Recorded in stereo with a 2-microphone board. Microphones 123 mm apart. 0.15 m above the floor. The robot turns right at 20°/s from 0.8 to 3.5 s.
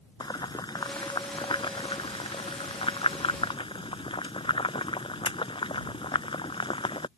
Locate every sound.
0.2 s boiling: 40° left (ahead or behind); by 7.1 s 50° left (ahead or behind)